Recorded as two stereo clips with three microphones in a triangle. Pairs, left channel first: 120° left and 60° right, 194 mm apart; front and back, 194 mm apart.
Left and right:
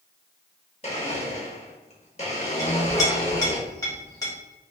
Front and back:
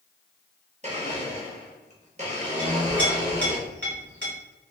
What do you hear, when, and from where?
0.8 s a blender: 155° left, 0.7 m
2.6 s a clink: 170° right, 1.2 m